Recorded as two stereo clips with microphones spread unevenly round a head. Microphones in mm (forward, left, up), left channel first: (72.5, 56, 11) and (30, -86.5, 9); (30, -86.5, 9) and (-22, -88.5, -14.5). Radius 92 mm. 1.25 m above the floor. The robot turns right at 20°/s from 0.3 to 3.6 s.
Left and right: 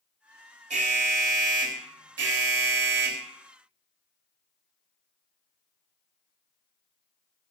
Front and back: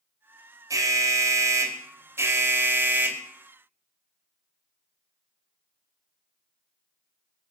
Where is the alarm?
165° right, 3 m; by 3.2 s 110° right, 3 m.